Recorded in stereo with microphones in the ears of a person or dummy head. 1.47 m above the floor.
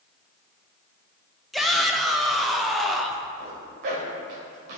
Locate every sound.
1.5 s a shout: centre (ahead or behind), 0.7 m
3.4 s a zipper: 55° right (ahead or behind), 1.9 m